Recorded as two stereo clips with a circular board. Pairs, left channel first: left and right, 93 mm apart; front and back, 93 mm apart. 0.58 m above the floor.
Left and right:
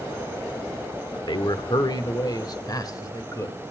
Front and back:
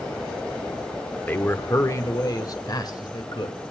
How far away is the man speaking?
About 1.0 m.